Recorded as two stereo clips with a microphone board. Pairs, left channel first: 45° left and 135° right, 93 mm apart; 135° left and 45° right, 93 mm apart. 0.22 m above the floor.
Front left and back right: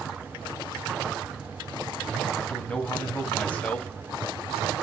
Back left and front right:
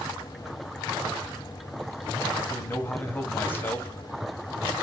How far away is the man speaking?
About 1.3 m.